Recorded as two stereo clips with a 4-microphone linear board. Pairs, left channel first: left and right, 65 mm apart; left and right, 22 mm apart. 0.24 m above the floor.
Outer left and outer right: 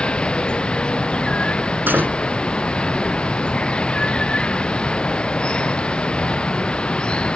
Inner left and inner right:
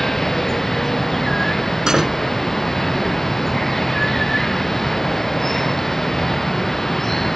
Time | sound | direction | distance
0.0 | running water | 15° left (ahead or behind) | ?
1.9 | a door slam | 30° right (ahead or behind) | ?